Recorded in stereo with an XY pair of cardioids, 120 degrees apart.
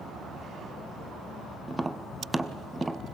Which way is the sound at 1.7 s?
15° right.